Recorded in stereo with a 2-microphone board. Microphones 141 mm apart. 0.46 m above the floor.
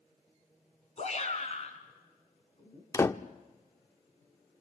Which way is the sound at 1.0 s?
50° left (ahead or behind).